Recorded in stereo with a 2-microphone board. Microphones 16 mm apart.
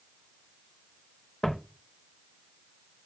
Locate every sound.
1.4 s footsteps: 60° left (ahead or behind), 0.7 m